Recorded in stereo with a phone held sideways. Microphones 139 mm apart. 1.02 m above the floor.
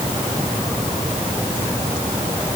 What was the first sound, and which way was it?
Only background noise.